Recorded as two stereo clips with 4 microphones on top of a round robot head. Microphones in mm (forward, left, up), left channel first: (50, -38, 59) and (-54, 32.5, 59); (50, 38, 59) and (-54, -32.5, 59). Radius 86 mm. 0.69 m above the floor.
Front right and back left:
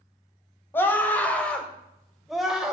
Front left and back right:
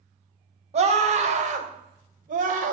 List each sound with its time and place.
0.7 s a scream: 110° right, 3 m; by 2.7 s 130° right, 2.5 m